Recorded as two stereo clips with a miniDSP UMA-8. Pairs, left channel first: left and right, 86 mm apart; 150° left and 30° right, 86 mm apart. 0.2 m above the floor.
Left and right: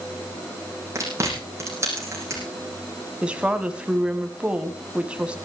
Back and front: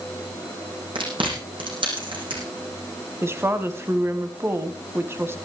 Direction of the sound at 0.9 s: 35° right.